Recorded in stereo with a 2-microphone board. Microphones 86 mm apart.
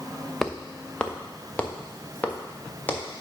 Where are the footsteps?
5° left (ahead or behind), 0.7 m; by 3.2 s 25° left (ahead or behind), 2.5 m.